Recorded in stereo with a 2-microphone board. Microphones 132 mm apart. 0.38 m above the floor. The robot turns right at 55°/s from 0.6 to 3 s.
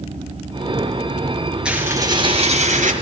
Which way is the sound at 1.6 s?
175° right.